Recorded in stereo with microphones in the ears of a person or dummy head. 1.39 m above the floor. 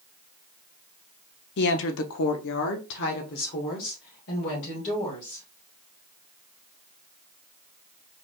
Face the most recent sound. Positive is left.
turn(degrees=35)  # may be behind; listen again after turning